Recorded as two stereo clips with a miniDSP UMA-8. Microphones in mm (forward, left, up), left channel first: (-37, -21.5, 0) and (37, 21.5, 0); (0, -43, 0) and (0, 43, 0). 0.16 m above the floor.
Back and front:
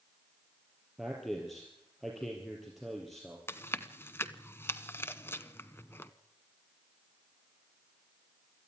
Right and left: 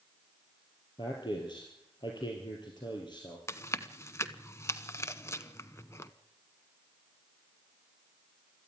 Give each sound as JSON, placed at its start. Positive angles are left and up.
{"t": 1.0, "sound": "a man speaking", "azimuth_deg": -60, "distance_m": 3.5}
{"t": 3.5, "sound": "chewing", "azimuth_deg": -115, "distance_m": 0.9}